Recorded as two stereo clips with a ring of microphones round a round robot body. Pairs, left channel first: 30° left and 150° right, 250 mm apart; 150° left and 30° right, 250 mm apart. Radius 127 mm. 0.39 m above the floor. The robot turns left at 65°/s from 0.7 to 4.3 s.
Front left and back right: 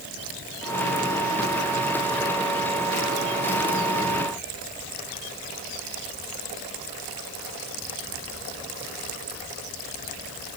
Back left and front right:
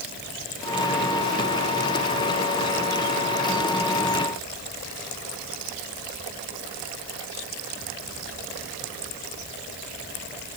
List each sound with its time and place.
Only background noise.